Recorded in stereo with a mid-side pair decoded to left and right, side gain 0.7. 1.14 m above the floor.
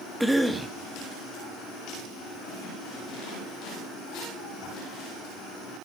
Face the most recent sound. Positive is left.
turn(degrees=-10)